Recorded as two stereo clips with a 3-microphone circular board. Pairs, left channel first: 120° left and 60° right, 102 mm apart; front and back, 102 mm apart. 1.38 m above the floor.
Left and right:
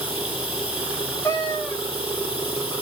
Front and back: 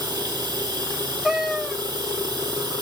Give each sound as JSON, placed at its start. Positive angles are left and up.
{"t": 0.0, "sound": "running water", "azimuth_deg": 155, "distance_m": 2.5}
{"t": 1.2, "sound": "a cat meowing", "azimuth_deg": 100, "distance_m": 0.6}